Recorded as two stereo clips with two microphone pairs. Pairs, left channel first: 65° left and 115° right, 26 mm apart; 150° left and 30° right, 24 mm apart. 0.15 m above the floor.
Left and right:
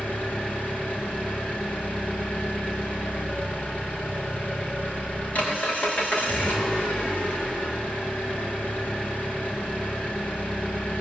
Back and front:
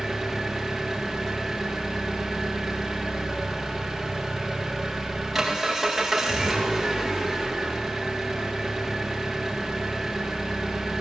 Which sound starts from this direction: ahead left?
An engine running, at 0.0 s.